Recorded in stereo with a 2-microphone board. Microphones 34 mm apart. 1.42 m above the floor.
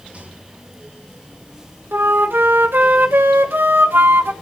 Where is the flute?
85° right, 1.2 m.